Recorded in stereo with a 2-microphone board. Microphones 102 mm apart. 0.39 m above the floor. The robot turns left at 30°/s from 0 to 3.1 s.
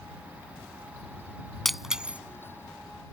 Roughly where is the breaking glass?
Centre.